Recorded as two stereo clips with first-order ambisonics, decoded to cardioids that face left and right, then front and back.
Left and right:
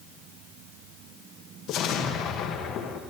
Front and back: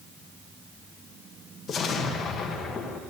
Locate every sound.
1.7 s an explosion: 60° left, 1.0 m